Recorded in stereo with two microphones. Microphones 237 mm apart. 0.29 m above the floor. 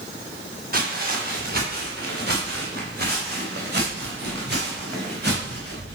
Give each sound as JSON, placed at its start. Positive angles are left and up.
{"t": 0.7, "sound": "footsteps", "side_deg": -40, "distance_m": 3.0}